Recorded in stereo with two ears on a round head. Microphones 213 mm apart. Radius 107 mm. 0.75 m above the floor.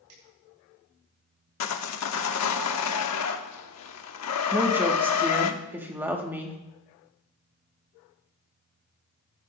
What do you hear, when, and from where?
0.1 s a finger snap: 80° right, 8 m
1.6 s sawing: 75° left (ahead or behind), 1.1 m
4.5 s a woman speaking: 10° right (ahead or behind), 1.6 m